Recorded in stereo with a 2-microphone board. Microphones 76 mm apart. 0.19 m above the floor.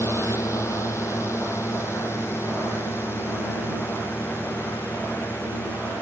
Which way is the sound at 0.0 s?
40° left (ahead or behind).